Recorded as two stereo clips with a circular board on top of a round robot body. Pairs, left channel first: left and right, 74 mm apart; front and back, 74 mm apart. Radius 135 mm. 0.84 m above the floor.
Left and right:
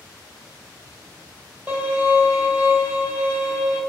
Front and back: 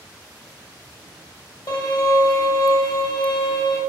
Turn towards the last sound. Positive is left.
turn(degrees=-20)